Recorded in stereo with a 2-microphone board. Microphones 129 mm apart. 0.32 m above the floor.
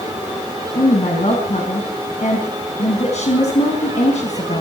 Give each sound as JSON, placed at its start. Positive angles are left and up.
{"t": 0.8, "sound": "a woman speaking", "side_deg": 65, "distance_m": 3.5}